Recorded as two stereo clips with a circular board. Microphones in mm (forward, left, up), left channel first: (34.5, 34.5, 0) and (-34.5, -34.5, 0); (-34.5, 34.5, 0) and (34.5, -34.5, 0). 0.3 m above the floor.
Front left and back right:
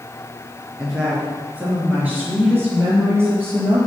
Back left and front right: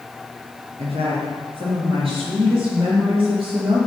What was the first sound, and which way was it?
A woman speaking, 50° right.